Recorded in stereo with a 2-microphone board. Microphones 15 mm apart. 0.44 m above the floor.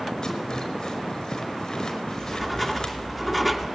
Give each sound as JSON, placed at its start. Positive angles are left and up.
{"t": 0.2, "sound": "a rattle", "side_deg": 45, "distance_m": 5.0}
{"t": 2.1, "sound": "writing", "side_deg": -10, "distance_m": 2.5}